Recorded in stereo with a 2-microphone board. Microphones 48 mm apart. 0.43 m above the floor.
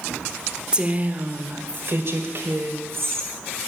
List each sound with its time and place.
0.7 s a woman speaking: 20° right (ahead or behind), 0.9 m; by 3.3 s 65° right (ahead or behind), 2.5 m